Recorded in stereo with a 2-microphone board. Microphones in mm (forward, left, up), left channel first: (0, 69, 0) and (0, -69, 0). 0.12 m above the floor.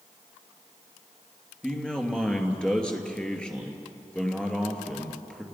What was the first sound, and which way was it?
A man speaking, 5° left (ahead or behind).